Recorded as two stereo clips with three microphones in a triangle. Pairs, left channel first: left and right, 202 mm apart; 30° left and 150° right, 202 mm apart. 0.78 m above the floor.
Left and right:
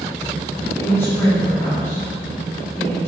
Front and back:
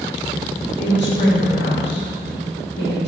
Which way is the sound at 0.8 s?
15° left.